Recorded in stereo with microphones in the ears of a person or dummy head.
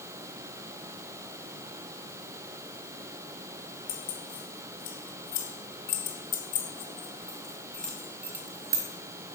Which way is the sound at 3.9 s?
75° left (ahead or behind).